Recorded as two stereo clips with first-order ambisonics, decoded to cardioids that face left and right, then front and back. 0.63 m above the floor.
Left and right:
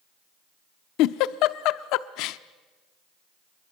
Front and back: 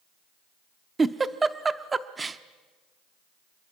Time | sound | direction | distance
1.0 | a giggle | 105° left | 0.7 m